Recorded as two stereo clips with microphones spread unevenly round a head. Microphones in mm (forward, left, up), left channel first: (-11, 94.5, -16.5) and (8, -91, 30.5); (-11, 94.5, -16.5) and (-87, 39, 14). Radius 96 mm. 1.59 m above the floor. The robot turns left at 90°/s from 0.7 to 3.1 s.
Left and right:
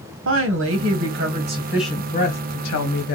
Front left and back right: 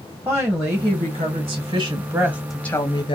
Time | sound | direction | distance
0.2 | a woman speaking | 70° right | 1.1 m